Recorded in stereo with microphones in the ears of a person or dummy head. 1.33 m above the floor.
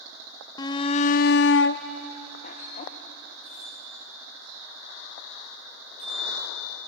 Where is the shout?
20° left (ahead or behind), 0.8 m; by 2.9 s 40° left (ahead or behind), 1.3 m.